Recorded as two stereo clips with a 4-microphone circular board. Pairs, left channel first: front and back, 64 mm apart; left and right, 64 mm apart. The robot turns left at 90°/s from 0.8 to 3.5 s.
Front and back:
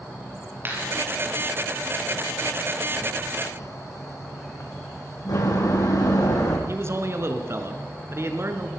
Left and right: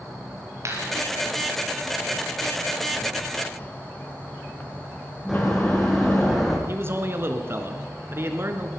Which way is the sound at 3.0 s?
80° left.